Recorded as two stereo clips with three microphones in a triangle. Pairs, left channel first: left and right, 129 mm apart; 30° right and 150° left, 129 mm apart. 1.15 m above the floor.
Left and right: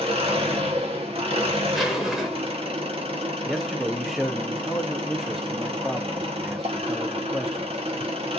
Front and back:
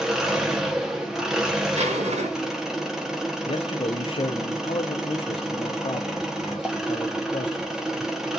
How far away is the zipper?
About 0.9 m.